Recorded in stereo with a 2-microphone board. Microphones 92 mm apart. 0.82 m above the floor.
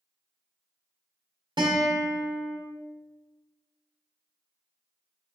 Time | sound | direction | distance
1.6 | a guitar | 60° right (ahead or behind) | 1.5 m